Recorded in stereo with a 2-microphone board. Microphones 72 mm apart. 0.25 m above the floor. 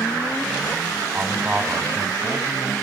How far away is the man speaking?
About 1.7 m.